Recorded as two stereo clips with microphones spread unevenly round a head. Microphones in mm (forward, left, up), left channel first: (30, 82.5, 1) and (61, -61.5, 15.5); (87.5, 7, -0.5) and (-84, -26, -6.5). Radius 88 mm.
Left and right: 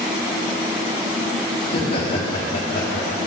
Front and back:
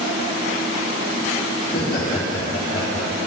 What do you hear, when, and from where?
1.6 s laughter: 55° left, 2.5 m